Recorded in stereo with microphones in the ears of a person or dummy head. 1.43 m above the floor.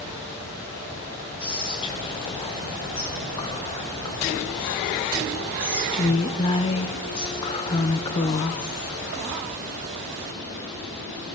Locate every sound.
1.4 s whispering: 25° left (ahead or behind), 0.9 m